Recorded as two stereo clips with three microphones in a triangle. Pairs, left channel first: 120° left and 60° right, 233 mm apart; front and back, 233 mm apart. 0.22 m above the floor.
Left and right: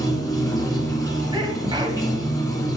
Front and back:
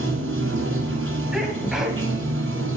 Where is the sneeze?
95° right, 1.2 m.